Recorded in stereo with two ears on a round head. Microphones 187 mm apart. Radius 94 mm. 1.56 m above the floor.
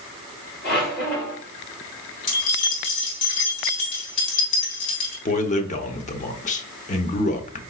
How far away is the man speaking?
About 0.8 m.